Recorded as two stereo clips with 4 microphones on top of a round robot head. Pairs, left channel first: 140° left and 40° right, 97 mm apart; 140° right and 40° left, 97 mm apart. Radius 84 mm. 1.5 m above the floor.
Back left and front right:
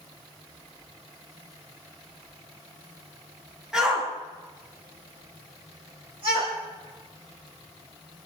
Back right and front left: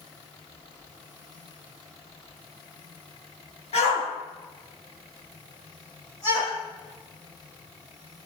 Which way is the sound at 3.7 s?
125° right.